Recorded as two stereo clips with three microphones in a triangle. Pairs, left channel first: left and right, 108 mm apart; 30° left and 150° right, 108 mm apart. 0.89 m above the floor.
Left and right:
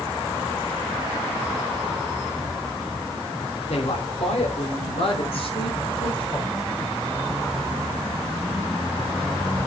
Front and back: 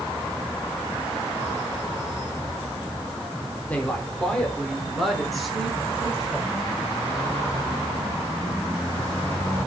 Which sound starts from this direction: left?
A woman speaking, at 3.7 s.